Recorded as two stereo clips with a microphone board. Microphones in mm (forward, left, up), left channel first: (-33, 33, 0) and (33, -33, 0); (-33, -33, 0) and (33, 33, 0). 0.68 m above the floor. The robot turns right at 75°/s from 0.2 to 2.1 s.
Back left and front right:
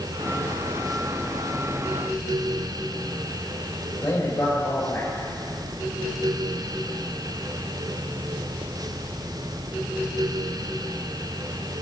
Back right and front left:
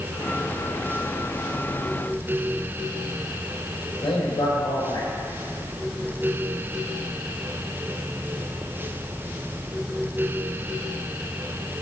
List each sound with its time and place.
4.0 s a man speaking: 165° right, 4.5 m